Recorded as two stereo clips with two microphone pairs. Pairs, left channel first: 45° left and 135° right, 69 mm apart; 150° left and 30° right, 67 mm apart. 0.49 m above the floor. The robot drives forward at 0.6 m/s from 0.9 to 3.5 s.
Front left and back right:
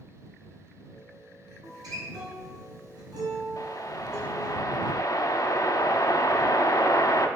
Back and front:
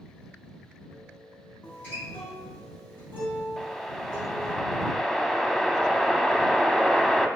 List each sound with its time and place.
1.6 s a guitar: 145° right, 3.5 m; by 4.6 s 150° right, 4.5 m
3.6 s a whoosh: 60° left, 0.7 m